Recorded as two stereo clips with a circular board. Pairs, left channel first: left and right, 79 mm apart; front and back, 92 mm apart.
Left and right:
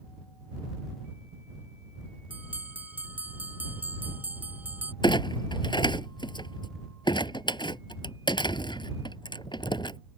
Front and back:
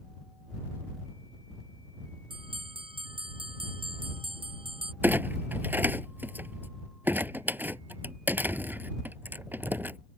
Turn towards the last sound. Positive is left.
turn(degrees=110)